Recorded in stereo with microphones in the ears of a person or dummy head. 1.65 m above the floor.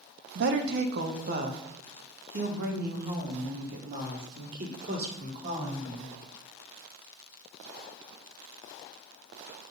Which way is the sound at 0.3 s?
60° right (ahead or behind).